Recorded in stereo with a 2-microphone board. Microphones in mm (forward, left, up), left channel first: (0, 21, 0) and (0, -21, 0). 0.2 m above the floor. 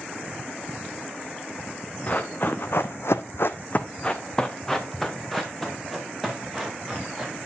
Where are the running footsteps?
35° left (ahead or behind), 1.1 m; by 7.3 s centre (ahead or behind), 3.5 m.